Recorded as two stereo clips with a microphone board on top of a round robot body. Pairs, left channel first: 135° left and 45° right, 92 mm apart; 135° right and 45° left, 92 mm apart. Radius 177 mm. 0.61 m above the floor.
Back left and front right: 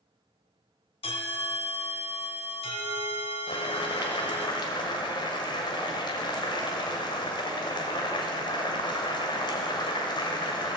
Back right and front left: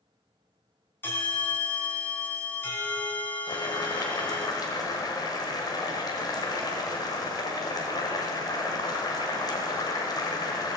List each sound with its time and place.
1.0 s a bell: 155° left, 2 m
3.5 s boiling: 175° left, 1.5 m